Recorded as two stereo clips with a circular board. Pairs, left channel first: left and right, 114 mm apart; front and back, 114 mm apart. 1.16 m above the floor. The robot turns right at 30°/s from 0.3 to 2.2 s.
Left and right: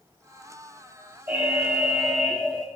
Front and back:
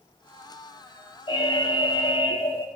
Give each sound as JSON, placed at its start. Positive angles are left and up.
{"t": 1.3, "sound": "an alarm", "azimuth_deg": -15, "distance_m": 1.4}